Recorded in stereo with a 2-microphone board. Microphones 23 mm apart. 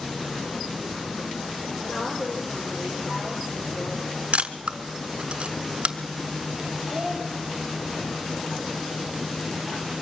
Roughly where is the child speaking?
Right.